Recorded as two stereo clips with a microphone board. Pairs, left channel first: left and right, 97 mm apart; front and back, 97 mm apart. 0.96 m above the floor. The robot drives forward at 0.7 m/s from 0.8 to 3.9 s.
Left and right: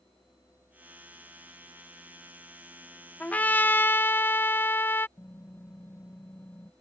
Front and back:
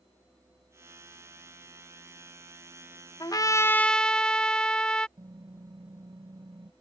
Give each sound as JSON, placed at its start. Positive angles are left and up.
{"t": 3.2, "sound": "a trumpet", "azimuth_deg": 20}
{"t": 5.2, "sound": "typing on a keyboard", "azimuth_deg": 150}